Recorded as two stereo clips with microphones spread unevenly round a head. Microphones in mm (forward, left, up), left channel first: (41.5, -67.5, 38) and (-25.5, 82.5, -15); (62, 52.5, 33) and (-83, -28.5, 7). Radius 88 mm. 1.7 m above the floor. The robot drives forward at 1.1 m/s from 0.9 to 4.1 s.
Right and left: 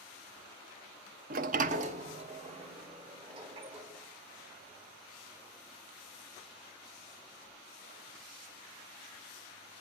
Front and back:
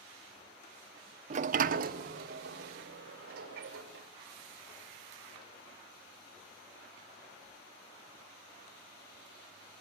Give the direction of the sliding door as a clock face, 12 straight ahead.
7 o'clock.